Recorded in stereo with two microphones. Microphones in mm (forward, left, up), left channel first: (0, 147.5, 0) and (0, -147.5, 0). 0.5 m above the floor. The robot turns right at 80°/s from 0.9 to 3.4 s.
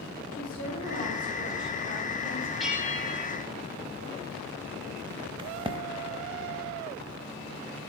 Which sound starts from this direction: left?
A woman speaking, at 0.3 s.